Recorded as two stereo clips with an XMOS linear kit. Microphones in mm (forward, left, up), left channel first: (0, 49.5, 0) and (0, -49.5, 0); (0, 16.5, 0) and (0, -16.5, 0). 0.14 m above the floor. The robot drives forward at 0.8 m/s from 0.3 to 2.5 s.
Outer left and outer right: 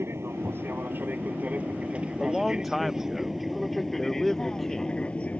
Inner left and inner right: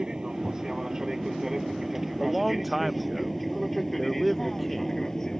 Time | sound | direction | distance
0.0 | an aircraft | 25° right (ahead or behind) | ?
2.2 | a man speaking | centre (ahead or behind) | ?